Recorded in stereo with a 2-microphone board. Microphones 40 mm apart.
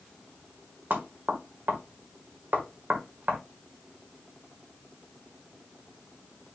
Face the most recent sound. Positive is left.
turn(degrees=-55)  # may be behind; listen again after turning